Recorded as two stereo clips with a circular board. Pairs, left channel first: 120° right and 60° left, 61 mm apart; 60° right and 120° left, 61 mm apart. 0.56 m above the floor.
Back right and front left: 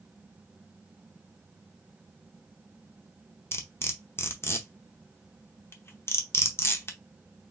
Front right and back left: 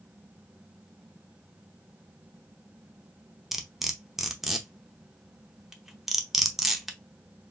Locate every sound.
3.5 s cutlery clinking: 155° right, 0.7 m